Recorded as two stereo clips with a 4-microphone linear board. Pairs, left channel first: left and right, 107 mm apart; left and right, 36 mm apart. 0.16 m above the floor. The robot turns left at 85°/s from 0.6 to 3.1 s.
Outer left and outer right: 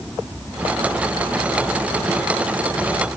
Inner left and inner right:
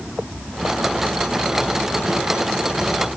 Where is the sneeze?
No sneeze in this recording.